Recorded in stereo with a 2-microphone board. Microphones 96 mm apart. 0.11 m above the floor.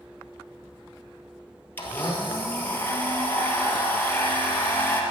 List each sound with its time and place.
1.8 s a blender: 20° left (ahead or behind), 1.8 m